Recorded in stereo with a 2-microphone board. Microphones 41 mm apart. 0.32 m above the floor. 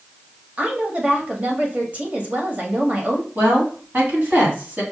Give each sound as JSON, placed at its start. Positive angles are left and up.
{"t": 0.6, "sound": "a woman speaking", "side_deg": -35, "distance_m": 1.2}
{"t": 3.4, "sound": "a woman speaking", "side_deg": -35, "distance_m": 3.0}